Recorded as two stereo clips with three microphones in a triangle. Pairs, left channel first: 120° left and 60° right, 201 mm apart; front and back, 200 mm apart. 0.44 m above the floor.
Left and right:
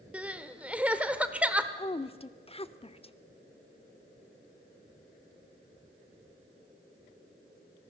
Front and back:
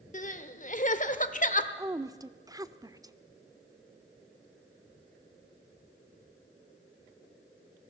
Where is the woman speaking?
125° left, 0.8 m.